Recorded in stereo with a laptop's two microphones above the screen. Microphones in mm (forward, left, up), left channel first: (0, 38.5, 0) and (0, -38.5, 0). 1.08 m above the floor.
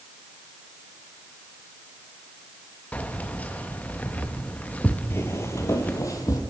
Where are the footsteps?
35° left (ahead or behind), 1.2 m; by 6.4 s 45° left (ahead or behind), 1.9 m.